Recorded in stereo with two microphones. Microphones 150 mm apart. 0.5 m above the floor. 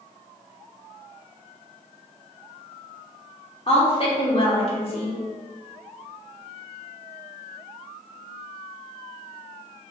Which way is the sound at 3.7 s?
40° left (ahead or behind).